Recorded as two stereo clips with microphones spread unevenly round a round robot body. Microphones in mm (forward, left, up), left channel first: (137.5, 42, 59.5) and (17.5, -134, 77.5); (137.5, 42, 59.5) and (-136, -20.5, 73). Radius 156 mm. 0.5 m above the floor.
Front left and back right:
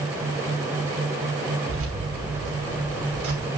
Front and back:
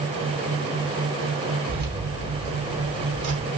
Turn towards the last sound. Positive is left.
turn(degrees=-135)